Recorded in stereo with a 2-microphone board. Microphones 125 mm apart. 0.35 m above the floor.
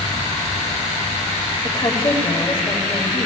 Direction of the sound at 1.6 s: 35° left (ahead or behind).